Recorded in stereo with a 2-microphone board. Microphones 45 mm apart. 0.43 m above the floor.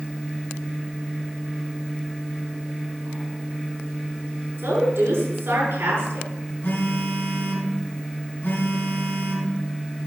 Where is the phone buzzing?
55° left (ahead or behind), 4.5 m.